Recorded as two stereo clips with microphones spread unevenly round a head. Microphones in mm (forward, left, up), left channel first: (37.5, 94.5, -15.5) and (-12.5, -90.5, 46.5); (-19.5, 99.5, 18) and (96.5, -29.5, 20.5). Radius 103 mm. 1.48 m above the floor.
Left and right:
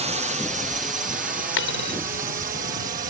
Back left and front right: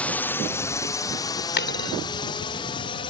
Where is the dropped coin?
115° left.